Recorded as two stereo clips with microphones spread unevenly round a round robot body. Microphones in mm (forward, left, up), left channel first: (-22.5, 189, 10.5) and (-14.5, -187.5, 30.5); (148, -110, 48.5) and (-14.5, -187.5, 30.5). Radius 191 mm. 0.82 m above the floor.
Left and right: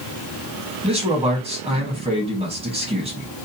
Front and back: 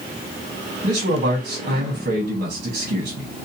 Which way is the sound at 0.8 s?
160° right.